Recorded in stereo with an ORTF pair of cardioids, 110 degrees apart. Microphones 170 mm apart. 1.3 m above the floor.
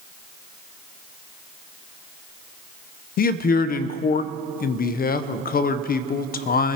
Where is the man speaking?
55° left, 0.6 m.